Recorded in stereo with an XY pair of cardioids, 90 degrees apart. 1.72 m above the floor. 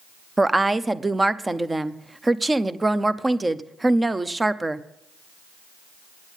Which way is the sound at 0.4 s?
20° right.